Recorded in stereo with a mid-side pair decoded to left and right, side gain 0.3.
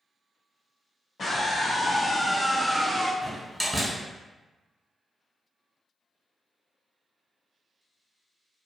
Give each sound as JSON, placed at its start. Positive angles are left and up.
{"t": 1.2, "sound": "a scream", "azimuth_deg": 60, "distance_m": 1.2}
{"t": 3.2, "sound": "a door slam", "azimuth_deg": -15, "distance_m": 1.6}